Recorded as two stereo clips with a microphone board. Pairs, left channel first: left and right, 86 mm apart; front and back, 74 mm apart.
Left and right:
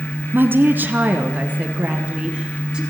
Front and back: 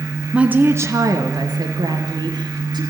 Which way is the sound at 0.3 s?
120° right.